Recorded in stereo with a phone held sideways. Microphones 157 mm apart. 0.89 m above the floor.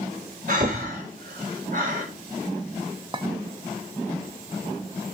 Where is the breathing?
60° right (ahead or behind), 3.5 m.